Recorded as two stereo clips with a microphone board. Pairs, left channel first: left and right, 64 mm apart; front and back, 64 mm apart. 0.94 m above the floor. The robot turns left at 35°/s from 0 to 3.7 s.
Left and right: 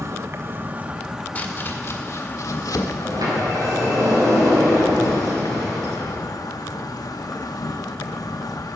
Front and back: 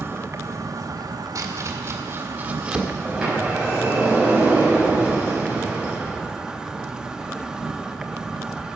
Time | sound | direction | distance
0.0 | an insect | 130° right | 1.1 m
1.4 | chopping | 150° left | 1.7 m
3.0 | a sliding door | 90° right | 5.5 m